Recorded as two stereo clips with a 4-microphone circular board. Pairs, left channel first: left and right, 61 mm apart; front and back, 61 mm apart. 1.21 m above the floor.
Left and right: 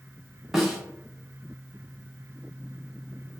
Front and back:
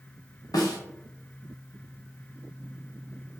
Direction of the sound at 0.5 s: 5° right.